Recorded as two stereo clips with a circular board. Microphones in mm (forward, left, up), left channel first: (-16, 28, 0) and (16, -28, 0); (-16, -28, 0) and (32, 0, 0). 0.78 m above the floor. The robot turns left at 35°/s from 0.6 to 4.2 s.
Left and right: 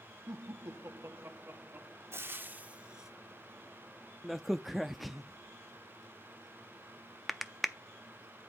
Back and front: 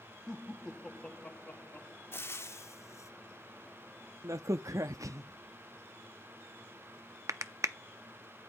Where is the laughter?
70° right, 1.2 m; by 2.0 s 120° right, 1.2 m.